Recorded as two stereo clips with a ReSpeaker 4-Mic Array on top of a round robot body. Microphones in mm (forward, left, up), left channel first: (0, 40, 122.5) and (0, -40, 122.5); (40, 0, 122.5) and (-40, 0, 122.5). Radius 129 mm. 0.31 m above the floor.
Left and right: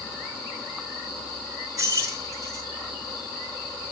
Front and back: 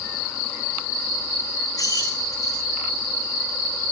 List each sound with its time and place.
1.8 s keys jangling: 45° right, 2.5 m